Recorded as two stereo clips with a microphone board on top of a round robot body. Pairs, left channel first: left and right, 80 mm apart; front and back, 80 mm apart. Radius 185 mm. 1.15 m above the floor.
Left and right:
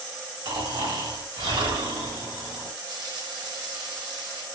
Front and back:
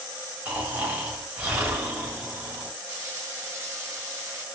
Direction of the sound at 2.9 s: 120° right.